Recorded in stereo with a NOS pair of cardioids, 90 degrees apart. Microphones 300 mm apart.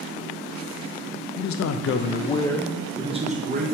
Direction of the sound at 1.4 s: 70° left.